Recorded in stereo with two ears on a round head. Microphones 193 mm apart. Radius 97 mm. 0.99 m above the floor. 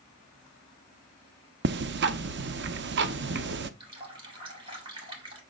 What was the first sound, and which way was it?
Ticking, 50° right (ahead or behind).